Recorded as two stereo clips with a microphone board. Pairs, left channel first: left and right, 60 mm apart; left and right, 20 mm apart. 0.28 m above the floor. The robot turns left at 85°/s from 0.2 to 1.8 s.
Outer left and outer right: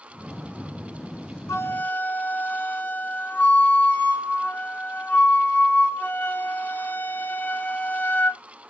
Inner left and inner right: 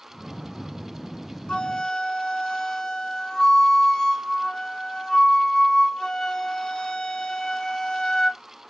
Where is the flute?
55° left (ahead or behind), 2 m; by 8.4 s 35° left (ahead or behind), 2 m.